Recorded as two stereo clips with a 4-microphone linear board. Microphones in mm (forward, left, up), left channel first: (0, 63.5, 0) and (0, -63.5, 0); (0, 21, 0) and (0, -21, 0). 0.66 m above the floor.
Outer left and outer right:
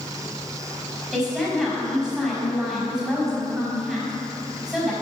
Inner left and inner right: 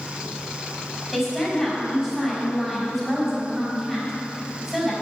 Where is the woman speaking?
5° right (ahead or behind), 5 m.